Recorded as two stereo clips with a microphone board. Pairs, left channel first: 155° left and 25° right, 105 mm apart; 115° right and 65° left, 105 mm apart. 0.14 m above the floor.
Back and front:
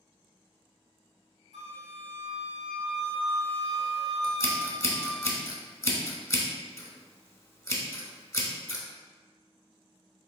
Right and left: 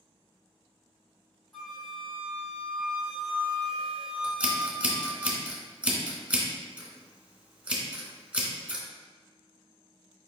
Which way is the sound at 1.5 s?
160° left.